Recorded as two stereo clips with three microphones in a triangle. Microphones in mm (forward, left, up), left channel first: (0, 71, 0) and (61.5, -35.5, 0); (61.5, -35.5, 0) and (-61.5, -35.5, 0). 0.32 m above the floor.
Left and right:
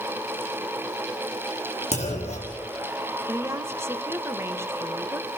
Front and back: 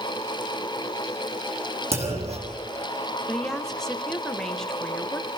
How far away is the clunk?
About 4 m.